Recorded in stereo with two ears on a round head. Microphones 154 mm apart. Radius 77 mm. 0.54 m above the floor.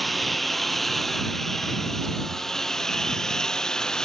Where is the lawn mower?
Centre (ahead or behind); by 4.1 s 5° left (ahead or behind).